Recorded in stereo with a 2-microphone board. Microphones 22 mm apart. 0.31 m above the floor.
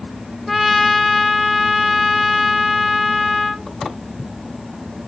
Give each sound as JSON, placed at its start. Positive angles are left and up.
{"t": 0.5, "sound": "a trumpet", "side_deg": 0, "distance_m": 1.5}